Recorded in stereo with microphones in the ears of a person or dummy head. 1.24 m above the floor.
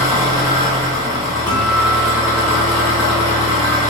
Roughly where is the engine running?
Centre.